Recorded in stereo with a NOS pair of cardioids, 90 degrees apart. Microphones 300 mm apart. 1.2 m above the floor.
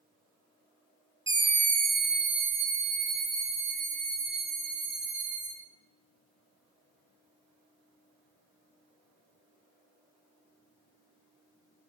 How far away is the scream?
About 0.7 m.